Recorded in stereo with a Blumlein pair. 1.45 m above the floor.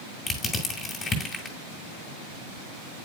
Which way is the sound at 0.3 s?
15° left.